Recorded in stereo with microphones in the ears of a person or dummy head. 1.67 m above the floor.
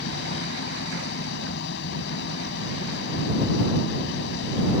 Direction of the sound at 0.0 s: 65° left (ahead or behind).